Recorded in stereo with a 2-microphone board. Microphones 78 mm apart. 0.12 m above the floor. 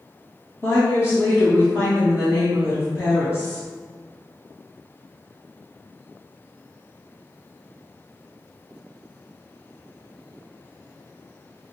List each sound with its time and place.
0.6 s a woman speaking: 30° left (ahead or behind), 1.5 m